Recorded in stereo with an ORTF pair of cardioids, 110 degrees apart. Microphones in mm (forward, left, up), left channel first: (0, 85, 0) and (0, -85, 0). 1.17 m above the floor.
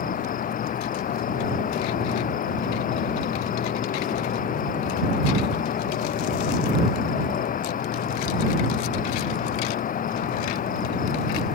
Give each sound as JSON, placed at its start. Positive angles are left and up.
{"t": 0.0, "sound": "an insect", "azimuth_deg": 55}